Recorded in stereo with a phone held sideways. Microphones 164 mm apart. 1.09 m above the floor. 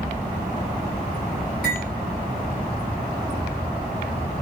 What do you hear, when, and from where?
1.6 s cutlery clinking: 80° right, 3 m